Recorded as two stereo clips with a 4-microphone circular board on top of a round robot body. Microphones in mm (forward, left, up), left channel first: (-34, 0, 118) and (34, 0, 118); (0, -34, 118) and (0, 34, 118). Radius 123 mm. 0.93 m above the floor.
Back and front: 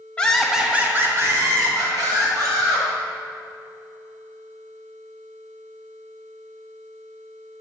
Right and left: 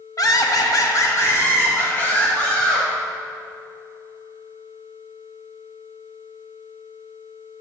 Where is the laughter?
110° right, 1.2 m; by 2.9 s 20° right, 3 m.